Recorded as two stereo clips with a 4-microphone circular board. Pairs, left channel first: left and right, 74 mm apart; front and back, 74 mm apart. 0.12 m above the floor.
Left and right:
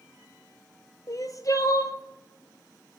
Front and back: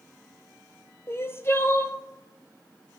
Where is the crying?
55° left, 0.7 m.